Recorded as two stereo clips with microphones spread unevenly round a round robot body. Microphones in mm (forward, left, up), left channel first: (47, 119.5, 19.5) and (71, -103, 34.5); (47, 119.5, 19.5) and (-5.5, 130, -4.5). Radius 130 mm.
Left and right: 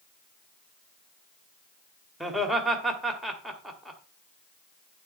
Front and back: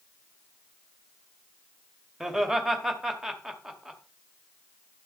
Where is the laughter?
Straight behind, 1.7 m.